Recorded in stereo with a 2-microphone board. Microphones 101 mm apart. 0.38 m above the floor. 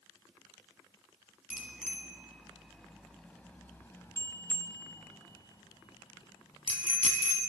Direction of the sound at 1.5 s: 15° right (ahead or behind).